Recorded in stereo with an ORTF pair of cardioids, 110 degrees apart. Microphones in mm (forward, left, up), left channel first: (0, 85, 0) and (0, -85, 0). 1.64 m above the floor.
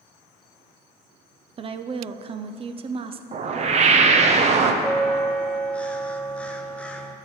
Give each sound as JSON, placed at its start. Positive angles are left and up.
{"t": 1.6, "sound": "a woman speaking", "azimuth_deg": -30, "distance_m": 0.5}
{"t": 3.3, "sound": "a whoosh", "azimuth_deg": -40, "distance_m": 0.7}
{"t": 4.8, "sound": "a bell", "azimuth_deg": 10, "distance_m": 0.6}